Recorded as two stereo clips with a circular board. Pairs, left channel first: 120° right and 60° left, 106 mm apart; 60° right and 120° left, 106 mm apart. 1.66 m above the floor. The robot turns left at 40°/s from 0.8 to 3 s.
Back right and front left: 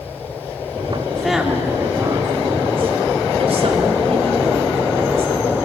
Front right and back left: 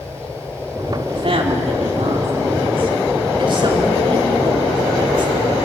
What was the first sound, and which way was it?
A woman speaking, 155° left.